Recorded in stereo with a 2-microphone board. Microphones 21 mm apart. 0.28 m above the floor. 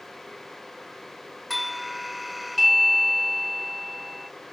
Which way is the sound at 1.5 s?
5° right (ahead or behind).